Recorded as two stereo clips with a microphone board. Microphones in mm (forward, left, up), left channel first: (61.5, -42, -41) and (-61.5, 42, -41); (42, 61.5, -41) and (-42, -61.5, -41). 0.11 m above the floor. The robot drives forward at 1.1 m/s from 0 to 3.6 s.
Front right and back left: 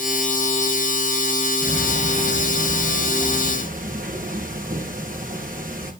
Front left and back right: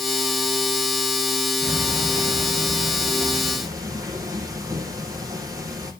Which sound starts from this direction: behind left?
Ticking, at 1.6 s.